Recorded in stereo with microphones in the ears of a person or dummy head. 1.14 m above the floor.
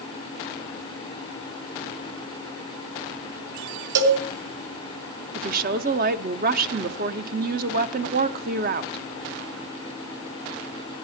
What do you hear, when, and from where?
4.0 s a cowbell: 75° right (ahead or behind), 3 m
5.3 s a woman speaking: 50° right (ahead or behind), 0.9 m